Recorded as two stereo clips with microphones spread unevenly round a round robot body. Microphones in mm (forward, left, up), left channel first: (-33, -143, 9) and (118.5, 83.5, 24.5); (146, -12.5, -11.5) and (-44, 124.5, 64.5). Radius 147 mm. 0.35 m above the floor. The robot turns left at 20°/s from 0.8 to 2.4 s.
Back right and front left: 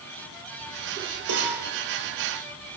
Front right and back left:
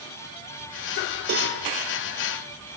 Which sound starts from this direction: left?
A cowbell, at 1.3 s.